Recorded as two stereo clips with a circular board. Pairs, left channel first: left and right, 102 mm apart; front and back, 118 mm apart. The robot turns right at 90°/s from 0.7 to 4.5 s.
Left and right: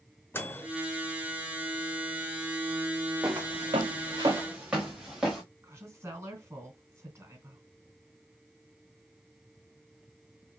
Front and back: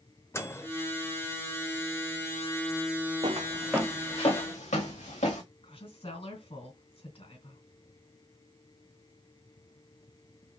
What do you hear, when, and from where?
0.3 s a microwave: 45° left, 0.7 m
3.2 s footsteps: 150° right, 1.3 m; by 5.4 s 5° right, 2.5 m
5.6 s a woman speaking: 25° right, 3 m